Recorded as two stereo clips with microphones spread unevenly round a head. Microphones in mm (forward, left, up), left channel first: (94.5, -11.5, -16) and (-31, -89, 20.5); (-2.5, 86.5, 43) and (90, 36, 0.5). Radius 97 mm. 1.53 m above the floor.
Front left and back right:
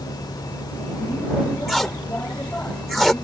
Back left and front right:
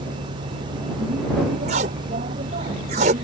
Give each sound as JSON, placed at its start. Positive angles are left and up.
{"t": 0.0, "sound": "a vehicle", "azimuth_deg": -40}
{"t": 1.7, "sound": "tape being pulled", "azimuth_deg": -60}